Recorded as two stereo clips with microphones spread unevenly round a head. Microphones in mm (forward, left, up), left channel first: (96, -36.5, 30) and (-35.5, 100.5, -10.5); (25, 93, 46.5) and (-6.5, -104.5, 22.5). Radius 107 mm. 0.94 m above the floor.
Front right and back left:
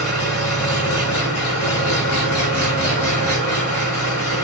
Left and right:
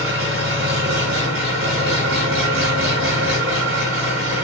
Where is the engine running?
65° right, 7.5 m.